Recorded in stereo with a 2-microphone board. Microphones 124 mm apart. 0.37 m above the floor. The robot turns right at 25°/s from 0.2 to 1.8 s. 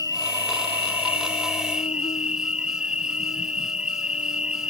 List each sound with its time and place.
0.0 s an insect: 35° left; by 4.7 s 75° left